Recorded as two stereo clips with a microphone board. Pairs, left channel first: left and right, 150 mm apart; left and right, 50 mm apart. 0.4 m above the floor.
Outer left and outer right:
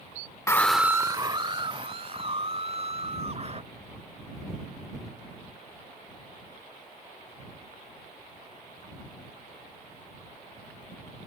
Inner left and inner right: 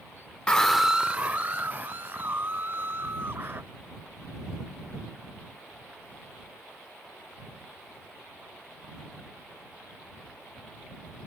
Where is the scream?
20° left (ahead or behind); by 3.6 s 45° right (ahead or behind).